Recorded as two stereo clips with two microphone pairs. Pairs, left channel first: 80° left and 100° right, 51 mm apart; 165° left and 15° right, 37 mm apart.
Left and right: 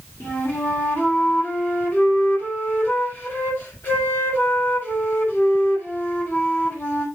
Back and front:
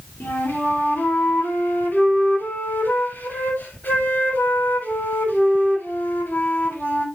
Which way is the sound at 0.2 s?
130° left.